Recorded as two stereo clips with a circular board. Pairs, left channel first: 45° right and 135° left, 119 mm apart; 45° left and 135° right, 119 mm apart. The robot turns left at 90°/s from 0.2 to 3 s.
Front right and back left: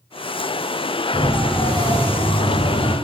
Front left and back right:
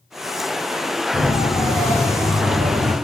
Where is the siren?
70° left, 8 m; by 2.9 s 100° right, 9.5 m.